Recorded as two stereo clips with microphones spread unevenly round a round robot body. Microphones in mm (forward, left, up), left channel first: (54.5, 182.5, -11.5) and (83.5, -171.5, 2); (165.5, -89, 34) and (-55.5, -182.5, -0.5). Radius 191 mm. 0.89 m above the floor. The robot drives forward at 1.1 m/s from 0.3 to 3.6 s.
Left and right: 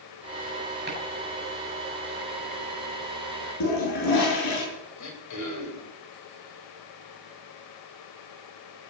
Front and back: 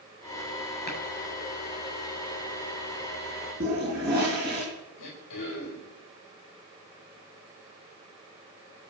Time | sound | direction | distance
0.9 | chopping | 25° right | 8 m
3.6 | a toilet flushing | 135° left | 8 m
5.0 | throat clearing | 55° left | 4.5 m